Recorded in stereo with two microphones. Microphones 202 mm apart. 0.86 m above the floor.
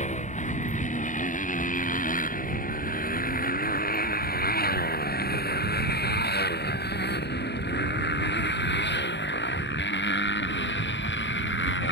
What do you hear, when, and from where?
0.0 s a motorcycle: 35° left (ahead or behind); by 11.9 s 70° left (ahead or behind)